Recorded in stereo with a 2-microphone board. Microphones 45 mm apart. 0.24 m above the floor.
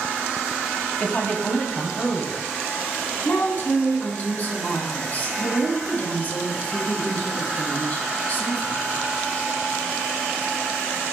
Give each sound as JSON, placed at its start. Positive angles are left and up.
{"t": 1.0, "sound": "a woman speaking", "side_deg": 40, "distance_m": 1.2}
{"t": 3.2, "sound": "a woman speaking", "side_deg": 40, "distance_m": 2.0}